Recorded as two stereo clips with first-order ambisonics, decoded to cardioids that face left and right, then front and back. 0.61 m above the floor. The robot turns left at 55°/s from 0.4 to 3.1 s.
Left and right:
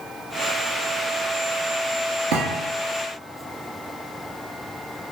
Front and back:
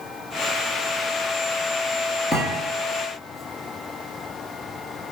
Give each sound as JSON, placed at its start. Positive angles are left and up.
{"t": 2.3, "sound": "a thud", "azimuth_deg": -80, "distance_m": 1.3}